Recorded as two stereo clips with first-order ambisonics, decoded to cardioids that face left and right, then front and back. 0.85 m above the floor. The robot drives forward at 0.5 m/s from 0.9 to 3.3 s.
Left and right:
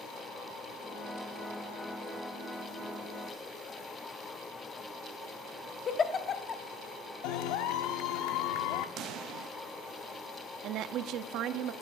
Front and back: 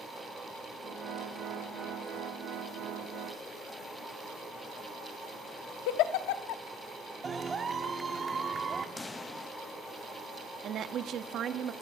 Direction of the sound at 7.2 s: 105° left.